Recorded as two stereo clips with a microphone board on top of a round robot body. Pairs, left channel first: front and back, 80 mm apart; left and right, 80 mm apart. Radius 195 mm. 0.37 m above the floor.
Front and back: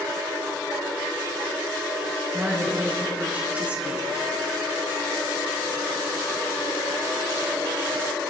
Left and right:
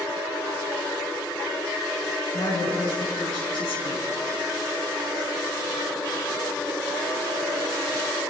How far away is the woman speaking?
About 5.5 m.